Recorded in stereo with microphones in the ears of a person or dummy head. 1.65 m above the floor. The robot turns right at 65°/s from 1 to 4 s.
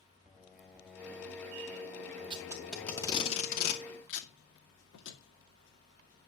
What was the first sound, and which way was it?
Singing, 5° right (ahead or behind).